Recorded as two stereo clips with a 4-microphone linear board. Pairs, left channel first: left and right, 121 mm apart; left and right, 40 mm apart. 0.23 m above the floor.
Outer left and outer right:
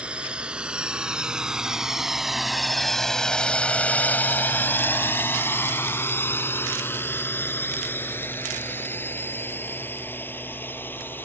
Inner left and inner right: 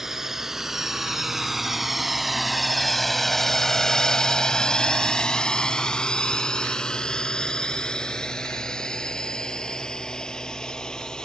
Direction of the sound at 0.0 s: 10° right (ahead or behind).